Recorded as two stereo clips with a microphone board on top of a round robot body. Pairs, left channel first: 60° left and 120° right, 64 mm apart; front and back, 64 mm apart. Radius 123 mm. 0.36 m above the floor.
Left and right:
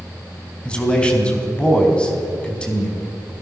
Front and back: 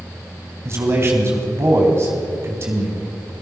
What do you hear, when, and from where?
0.7 s a man speaking: 135° left, 4 m